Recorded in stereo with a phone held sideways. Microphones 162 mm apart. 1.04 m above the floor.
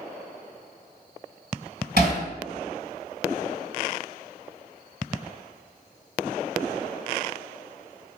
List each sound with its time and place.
2.0 s hammering: 80° right, 2.5 m